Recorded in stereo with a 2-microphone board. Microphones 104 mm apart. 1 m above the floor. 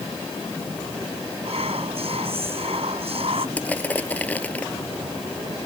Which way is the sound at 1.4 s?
65° right (ahead or behind).